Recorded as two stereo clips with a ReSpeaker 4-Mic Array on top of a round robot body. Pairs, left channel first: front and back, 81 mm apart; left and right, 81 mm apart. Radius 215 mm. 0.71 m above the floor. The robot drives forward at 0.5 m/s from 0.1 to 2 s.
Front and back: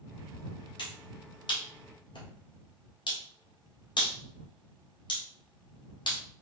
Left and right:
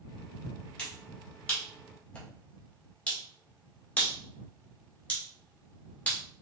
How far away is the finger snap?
About 2.5 m.